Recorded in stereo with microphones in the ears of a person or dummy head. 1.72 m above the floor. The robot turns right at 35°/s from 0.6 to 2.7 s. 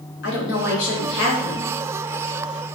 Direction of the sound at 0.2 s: 90° left.